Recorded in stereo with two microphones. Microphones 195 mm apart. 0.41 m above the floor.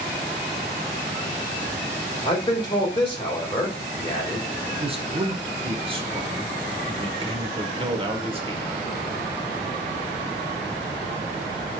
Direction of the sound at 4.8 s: 30° right (ahead or behind).